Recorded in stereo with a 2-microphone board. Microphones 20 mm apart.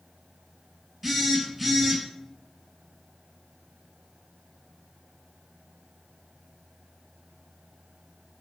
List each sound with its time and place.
1.0 s a phone buzzing: 5° right (ahead or behind), 0.6 m